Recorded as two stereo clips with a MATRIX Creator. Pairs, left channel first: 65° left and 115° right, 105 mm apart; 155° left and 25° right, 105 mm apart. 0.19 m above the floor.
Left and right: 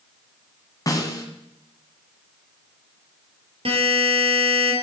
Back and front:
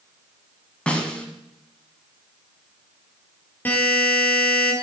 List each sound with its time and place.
0.9 s a snare drum: 85° left, 1.5 m
3.6 s a buzzer: 130° right, 3 m